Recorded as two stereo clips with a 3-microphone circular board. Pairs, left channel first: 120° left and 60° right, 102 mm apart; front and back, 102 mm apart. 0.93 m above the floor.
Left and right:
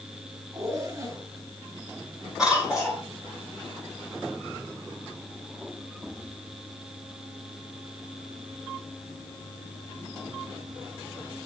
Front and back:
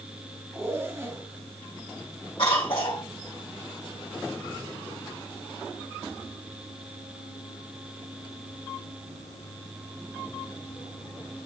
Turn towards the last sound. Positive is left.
turn(degrees=25)